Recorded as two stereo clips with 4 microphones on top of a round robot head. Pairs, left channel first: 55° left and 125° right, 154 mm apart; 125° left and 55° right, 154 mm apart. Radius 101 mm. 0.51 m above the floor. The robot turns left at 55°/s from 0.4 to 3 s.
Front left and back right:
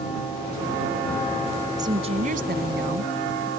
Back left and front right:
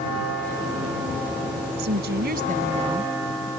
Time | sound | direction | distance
1.8 | a woman speaking | 55° right | ?